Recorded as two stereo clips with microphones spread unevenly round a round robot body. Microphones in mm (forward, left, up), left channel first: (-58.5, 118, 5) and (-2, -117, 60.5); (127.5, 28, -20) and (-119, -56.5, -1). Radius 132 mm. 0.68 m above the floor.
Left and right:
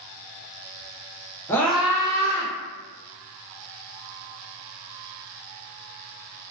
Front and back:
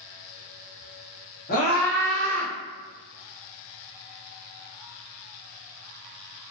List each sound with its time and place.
1.5 s a scream: 45° left, 0.8 m; by 2.5 s 135° right, 0.8 m